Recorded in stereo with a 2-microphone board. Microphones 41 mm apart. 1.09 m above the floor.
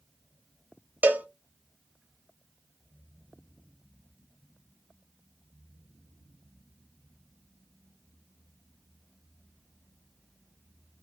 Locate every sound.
1.0 s a cowbell: 45° right (ahead or behind), 0.5 m